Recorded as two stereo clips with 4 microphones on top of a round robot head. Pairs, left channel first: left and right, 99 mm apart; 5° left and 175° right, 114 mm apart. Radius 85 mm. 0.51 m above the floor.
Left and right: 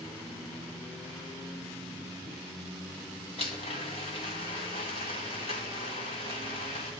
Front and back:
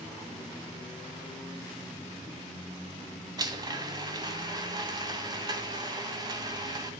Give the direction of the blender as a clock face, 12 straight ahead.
8 o'clock.